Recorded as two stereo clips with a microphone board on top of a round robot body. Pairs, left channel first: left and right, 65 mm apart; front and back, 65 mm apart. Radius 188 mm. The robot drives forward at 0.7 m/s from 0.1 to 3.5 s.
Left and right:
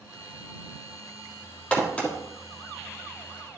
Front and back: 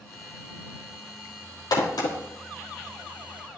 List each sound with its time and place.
1.7 s a crack: 20° left, 3 m